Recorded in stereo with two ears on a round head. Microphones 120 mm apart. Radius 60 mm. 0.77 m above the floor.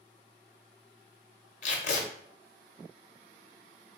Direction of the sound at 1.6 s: 55° left (ahead or behind).